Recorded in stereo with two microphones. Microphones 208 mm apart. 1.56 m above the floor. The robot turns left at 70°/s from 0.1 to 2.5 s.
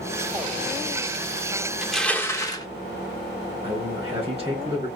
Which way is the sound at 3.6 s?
25° right (ahead or behind).